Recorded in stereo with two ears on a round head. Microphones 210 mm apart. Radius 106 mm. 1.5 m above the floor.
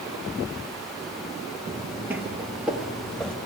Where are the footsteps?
10° right (ahead or behind), 1.9 m; by 3.4 s 5° left (ahead or behind), 1.7 m.